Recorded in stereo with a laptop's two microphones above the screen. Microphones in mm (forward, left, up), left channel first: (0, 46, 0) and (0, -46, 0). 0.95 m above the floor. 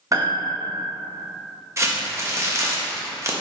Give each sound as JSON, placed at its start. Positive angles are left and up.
{"t": 0.1, "sound": "a piano", "side_deg": -40, "distance_m": 1.0}
{"t": 1.8, "sound": "crumpling", "side_deg": -35, "distance_m": 0.8}